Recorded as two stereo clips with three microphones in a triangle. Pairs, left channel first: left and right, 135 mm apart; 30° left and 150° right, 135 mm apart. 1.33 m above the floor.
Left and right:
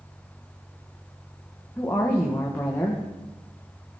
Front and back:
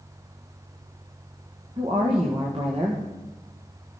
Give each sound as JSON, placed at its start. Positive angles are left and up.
{"t": 1.8, "sound": "a woman speaking", "azimuth_deg": 165, "distance_m": 1.3}